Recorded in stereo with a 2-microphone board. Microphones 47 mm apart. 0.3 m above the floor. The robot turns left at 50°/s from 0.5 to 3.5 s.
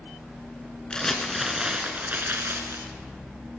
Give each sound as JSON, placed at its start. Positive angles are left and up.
{"t": 0.9, "sound": "crumpling", "azimuth_deg": 20, "distance_m": 1.3}